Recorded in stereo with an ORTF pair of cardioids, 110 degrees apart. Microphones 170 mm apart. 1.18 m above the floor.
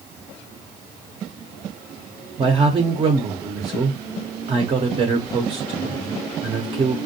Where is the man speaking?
30° right, 0.6 m.